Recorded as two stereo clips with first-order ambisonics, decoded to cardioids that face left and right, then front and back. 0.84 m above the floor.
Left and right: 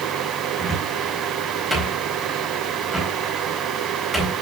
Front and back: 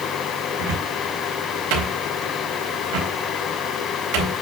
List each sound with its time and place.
0.6 s a cupboard door: straight behind, 4 m